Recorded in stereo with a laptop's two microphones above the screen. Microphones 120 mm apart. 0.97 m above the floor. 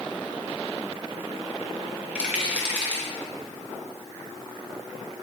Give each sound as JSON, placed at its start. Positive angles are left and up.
{"t": 2.1, "sound": "a rattle", "side_deg": -10, "distance_m": 0.9}